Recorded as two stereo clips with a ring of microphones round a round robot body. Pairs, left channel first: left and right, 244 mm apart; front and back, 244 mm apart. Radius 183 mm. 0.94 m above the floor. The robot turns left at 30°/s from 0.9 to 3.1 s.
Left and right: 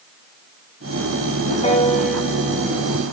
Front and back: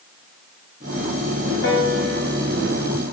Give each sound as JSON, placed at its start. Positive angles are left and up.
{"t": 1.6, "sound": "a piano", "azimuth_deg": 30, "distance_m": 7.5}